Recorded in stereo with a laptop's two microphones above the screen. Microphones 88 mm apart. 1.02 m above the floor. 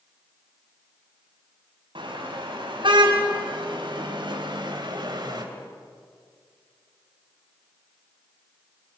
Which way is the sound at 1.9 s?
90° right.